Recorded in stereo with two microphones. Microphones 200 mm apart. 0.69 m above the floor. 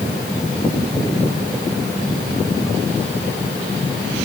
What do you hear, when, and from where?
Only background noise.